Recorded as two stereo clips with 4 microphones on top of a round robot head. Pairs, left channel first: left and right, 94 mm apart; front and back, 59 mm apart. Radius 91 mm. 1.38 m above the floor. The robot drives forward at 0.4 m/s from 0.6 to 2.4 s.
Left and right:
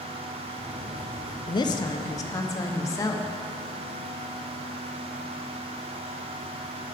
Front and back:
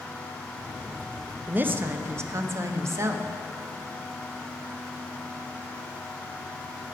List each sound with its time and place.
1.5 s a woman speaking: 120° left, 0.6 m; by 3.3 s 145° left, 0.9 m